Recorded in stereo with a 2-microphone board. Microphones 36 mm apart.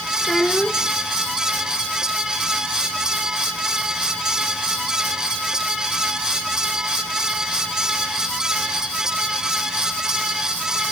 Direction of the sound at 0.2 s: 20° left (ahead or behind).